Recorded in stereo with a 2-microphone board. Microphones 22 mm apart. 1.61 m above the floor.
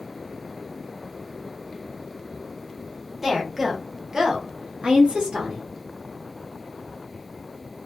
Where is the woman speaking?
5° right (ahead or behind), 1.2 m; by 5.6 s 50° right (ahead or behind), 0.9 m.